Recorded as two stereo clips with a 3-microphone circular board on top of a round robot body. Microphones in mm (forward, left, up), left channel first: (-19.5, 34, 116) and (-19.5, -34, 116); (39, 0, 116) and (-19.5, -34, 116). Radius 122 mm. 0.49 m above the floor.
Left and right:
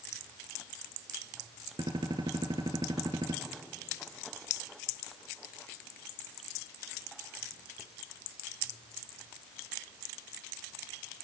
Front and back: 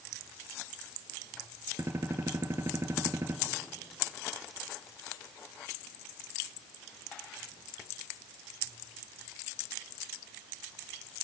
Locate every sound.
1.8 s a gunshot: 95° right, 1.7 m